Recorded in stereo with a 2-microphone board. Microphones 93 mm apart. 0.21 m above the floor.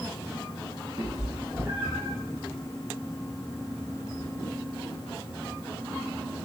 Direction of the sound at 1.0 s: 55° right (ahead or behind).